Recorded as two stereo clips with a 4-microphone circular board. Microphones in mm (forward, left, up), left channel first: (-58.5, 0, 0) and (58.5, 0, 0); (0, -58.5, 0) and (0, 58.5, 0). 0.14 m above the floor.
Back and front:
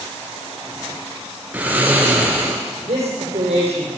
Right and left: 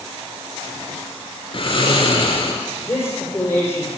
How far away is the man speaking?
About 5 m.